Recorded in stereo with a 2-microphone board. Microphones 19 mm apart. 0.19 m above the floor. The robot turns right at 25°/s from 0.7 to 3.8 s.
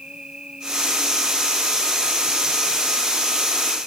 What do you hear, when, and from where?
0.0 s an insect: 50° right, 3 m; by 3.9 s 25° left, 3 m